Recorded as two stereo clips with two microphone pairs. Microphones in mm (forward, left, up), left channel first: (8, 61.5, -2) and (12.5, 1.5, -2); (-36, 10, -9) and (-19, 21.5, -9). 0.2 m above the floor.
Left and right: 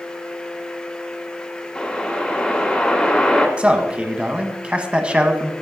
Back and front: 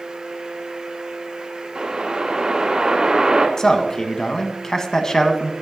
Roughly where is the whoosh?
Ahead left.